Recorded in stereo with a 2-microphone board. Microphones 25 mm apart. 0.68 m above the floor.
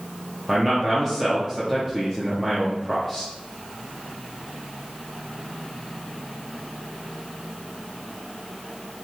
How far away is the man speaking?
About 0.8 m.